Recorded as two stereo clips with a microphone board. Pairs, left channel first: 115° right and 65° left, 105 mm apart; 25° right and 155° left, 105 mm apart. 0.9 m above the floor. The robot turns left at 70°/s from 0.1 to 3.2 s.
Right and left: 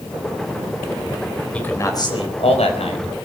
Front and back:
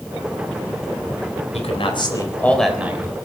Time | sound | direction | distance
1.5 | a man speaking | 35° right | 3.5 m